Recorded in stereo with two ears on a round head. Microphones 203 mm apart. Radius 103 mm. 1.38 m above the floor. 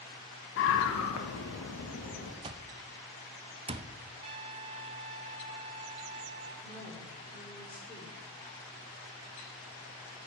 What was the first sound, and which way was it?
A scream, 60° left (ahead or behind).